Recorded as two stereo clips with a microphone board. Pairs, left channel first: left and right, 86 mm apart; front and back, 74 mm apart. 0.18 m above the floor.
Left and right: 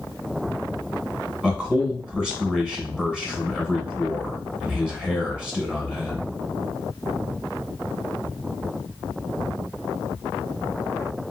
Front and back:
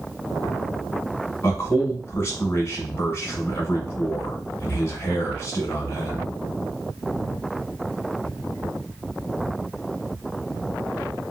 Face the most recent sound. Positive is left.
turn(degrees=-15)